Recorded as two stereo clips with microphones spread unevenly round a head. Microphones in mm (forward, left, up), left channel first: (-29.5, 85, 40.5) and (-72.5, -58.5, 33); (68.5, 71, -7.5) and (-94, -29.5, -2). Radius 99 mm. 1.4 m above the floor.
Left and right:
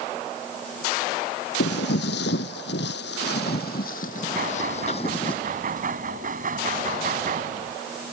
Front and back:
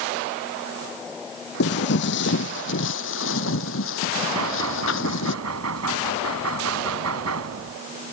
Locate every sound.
1.6 s footsteps: 55° left; by 5.3 s 10° left
4.3 s knocking: 135° right